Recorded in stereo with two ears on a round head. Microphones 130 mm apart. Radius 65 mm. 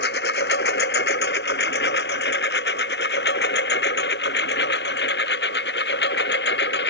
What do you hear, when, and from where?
0.0 s a lawn mower: 85° left; by 6.9 s 90° left